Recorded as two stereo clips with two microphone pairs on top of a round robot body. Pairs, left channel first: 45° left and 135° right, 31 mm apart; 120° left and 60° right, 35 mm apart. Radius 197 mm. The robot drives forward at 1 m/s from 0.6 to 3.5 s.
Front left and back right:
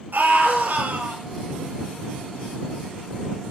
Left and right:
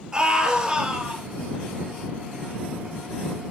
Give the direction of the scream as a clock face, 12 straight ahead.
4 o'clock.